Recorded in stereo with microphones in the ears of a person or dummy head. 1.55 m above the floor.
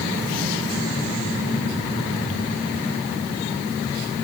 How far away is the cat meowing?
No cat meowing in this recording.